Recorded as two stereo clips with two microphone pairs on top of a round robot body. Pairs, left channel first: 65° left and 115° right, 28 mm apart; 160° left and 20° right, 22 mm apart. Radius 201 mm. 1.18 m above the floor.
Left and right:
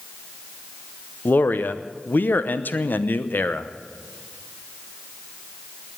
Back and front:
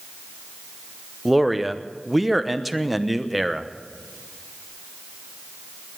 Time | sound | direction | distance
1.2 | a man speaking | 70° left | 1.1 m